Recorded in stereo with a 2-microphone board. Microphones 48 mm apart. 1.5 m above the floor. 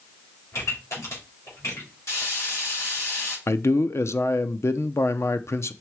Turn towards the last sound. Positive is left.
turn(degrees=65)  # may be behind; listen again after turning